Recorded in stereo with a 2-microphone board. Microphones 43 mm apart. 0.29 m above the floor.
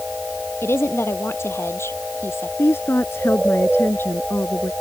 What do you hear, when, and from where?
0.6 s a woman speaking: 75° left (ahead or behind); by 2.5 s 85° left
2.6 s a woman speaking: 70° left (ahead or behind)